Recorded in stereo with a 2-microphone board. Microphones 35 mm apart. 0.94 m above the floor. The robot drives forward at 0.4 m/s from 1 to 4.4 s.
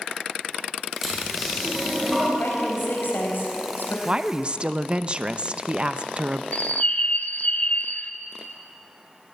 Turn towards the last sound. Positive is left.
turn(degrees=40)  # may be behind; listen again after turning